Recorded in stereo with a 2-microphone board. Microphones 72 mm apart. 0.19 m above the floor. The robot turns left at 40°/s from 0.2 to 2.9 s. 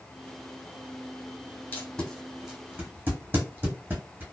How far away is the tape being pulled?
About 1.5 m.